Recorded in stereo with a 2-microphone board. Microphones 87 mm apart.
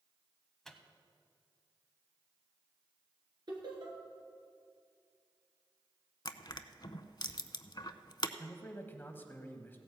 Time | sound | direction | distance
0.7 | a microwave | 5° left (ahead or behind) | 0.9 m
3.5 | laughter | 55° right (ahead or behind) | 3.5 m
6.2 | crushing | 55° left (ahead or behind) | 0.5 m
8.4 | a man speaking | 25° left (ahead or behind) | 1.1 m